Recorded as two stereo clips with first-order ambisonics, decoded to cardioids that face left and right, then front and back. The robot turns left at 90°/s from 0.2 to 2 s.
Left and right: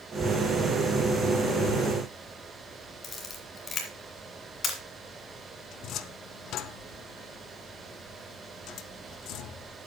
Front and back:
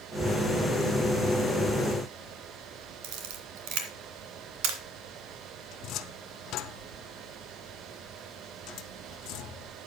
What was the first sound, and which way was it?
A camera shutter, 160° left.